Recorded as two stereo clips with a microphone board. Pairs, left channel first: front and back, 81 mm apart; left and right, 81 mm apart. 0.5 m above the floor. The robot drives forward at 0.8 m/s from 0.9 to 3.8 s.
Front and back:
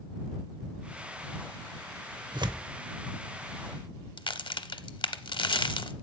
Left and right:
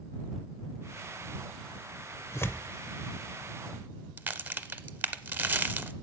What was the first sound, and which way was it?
Tearing paper, 150° left.